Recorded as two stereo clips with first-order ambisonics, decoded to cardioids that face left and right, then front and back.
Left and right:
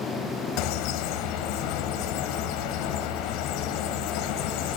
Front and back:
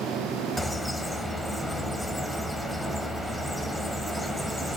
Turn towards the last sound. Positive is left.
turn(degrees=85)